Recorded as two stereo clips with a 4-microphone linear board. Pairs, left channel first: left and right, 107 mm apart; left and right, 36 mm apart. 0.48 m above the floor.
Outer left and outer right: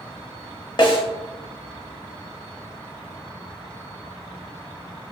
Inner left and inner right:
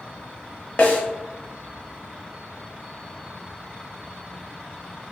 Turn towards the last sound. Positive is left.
turn(degrees=45)  # may be behind; listen again after turning